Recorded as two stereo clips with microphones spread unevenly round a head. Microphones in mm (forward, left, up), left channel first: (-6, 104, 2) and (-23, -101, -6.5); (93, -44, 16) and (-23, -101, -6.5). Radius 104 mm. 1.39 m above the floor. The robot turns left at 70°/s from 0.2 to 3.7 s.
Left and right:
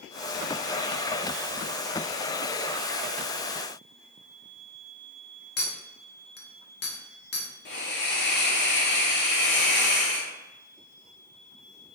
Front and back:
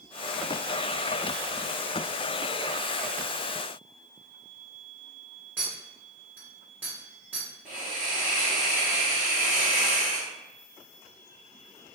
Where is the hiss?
125° left, 1.0 m.